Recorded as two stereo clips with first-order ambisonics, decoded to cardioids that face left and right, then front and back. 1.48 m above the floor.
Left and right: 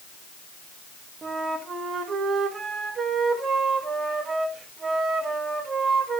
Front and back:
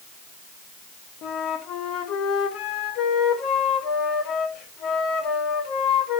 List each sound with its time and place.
1.2 s a flute: 25° right, 1.2 m